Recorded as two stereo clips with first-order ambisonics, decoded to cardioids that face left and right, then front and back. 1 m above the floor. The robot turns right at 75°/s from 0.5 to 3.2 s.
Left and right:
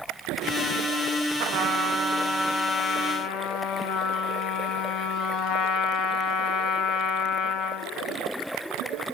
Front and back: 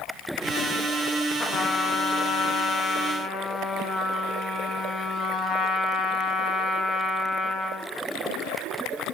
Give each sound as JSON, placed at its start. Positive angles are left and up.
{"t": 1.4, "sound": "a trumpet", "azimuth_deg": -75, "distance_m": 1.1}